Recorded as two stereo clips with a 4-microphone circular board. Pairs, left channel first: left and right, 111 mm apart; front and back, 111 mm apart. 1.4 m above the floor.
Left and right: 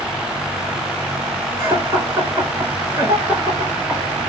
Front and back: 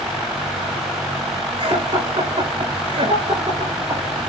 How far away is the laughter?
About 5 m.